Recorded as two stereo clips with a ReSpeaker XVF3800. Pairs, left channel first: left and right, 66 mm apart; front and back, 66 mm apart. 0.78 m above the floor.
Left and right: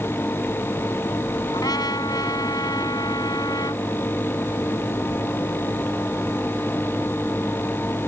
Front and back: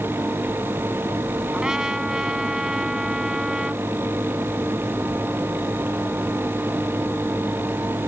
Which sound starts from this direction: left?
A trumpet, at 1.5 s.